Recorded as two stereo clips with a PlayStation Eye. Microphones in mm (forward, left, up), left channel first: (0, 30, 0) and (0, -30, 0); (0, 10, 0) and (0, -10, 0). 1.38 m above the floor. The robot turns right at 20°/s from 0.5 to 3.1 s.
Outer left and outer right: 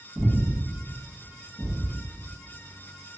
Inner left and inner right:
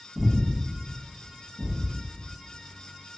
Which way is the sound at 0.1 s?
5° right (ahead or behind).